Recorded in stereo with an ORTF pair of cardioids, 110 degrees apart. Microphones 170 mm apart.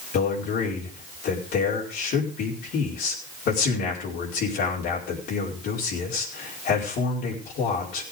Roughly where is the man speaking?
Left.